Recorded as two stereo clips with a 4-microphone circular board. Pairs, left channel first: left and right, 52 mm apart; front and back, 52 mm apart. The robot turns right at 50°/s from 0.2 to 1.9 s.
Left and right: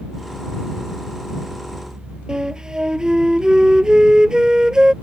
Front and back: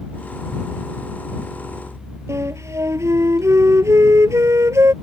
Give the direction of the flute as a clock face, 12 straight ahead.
5 o'clock.